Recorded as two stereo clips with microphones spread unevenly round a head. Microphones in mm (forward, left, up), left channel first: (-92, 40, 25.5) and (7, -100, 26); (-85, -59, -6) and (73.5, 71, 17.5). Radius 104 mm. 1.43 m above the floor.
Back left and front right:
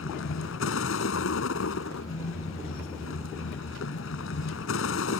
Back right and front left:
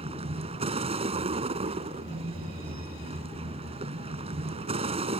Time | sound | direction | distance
0.0 | a vehicle | 100° left | ?